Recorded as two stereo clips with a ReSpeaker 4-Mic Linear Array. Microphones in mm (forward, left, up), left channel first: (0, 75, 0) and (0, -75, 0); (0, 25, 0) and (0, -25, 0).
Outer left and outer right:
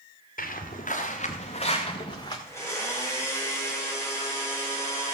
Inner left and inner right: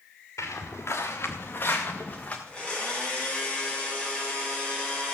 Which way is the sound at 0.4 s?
70° left (ahead or behind).